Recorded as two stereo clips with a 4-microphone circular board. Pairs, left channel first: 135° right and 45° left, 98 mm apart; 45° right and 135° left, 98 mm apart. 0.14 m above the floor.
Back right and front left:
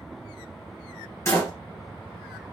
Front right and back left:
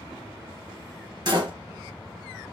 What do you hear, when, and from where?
1.2 s a door slam: 170° left, 2.0 m